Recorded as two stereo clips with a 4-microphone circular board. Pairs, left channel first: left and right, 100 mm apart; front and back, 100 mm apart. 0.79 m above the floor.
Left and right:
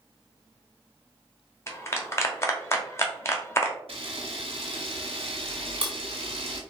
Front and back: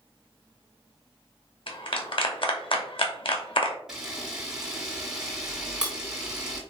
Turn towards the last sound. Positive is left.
turn(degrees=-95)